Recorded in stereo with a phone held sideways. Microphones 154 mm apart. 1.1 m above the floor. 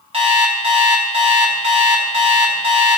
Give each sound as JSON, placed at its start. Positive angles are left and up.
{"t": 0.1, "sound": "an alarm clock", "side_deg": -40, "distance_m": 1.1}